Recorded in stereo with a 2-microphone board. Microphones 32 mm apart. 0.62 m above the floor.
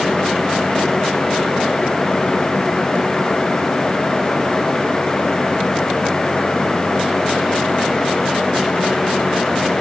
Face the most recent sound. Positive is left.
No sound to turn to.